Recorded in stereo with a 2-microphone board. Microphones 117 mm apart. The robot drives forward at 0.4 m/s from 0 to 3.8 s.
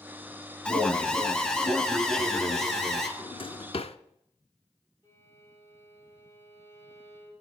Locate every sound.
0.7 s an alarm: 10° left (ahead or behind), 0.9 m; by 3.1 s 5° left (ahead or behind), 1.7 m
3.2 s a drawer: 45° left (ahead or behind), 0.6 m; by 4.0 s 60° left (ahead or behind), 0.5 m
5.0 s a violin: 30° left (ahead or behind), 5.5 m